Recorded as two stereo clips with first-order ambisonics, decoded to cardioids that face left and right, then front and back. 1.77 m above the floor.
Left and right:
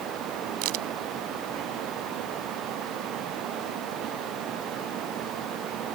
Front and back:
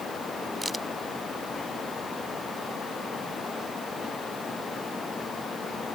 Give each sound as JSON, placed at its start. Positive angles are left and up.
{"t": 0.6, "sound": "a crack", "azimuth_deg": -100}